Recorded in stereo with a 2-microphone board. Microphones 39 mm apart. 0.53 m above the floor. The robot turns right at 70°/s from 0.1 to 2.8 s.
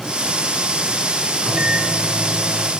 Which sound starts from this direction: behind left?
A microwave, at 1.4 s.